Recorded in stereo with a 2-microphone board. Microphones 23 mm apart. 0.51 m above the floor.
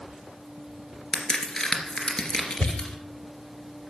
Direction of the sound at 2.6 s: 65° left (ahead or behind).